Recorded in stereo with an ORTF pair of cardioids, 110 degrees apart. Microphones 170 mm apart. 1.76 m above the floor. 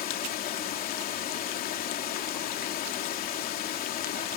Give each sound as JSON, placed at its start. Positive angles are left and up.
{"t": 0.0, "sound": "running water", "azimuth_deg": 65}